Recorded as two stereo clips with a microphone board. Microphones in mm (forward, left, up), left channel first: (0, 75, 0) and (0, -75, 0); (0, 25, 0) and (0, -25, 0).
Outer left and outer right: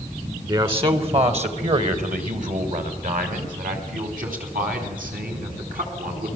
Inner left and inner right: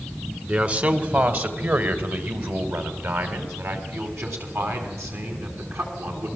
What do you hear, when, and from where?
0.5 s a man speaking: 35° right (ahead or behind), 1.9 m; by 6.3 s 80° right, 6.5 m